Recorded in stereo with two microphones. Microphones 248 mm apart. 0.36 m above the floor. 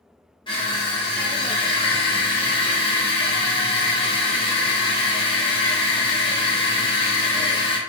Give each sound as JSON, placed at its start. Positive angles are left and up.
{"t": 0.5, "sound": "crushing", "side_deg": 20, "distance_m": 1.1}